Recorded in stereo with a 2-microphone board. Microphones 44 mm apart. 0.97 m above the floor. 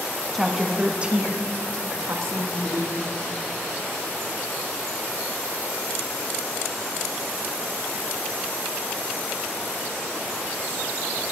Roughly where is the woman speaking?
Centre.